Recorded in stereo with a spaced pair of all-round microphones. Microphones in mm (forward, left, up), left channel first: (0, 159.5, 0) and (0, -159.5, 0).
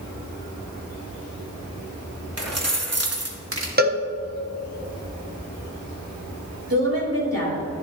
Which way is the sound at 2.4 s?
50° right (ahead or behind).